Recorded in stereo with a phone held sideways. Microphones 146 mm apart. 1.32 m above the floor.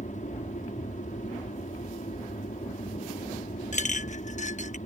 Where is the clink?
55° left (ahead or behind).